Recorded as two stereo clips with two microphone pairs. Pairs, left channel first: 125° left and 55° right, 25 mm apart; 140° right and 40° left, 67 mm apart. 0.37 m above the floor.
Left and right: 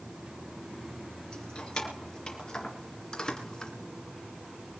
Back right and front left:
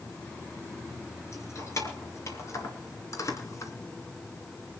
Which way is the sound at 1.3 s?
Straight behind.